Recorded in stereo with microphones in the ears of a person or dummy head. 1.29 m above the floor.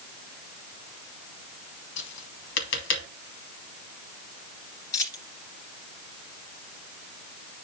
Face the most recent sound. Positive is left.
turn(degrees=25)  # may be behind; listen again after turning